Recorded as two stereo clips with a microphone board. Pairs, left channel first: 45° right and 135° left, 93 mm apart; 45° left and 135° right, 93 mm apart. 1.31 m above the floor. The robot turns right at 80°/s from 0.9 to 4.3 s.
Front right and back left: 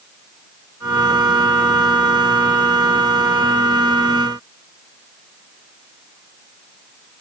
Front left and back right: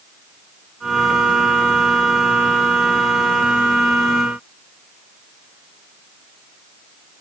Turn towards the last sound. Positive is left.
No sound to turn to.